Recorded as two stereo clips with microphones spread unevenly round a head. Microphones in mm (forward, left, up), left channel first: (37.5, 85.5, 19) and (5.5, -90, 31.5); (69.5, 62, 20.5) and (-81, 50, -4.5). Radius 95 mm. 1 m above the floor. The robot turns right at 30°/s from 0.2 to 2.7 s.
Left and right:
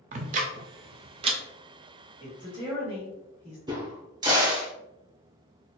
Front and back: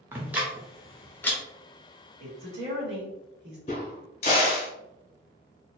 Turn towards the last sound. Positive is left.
turn(degrees=-40)